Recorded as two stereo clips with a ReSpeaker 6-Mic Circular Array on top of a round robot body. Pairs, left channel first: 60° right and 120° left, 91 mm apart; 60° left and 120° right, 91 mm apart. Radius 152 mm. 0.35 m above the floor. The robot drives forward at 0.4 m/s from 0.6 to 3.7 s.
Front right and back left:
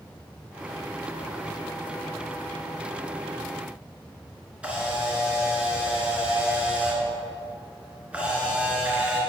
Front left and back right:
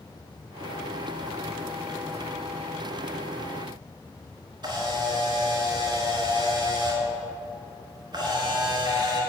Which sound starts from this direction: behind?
A camera shutter, at 4.6 s.